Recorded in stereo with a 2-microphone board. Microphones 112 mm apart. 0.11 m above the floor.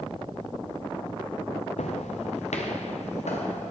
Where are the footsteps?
80° left, 0.7 m; by 3.7 s 90° left, 2.5 m.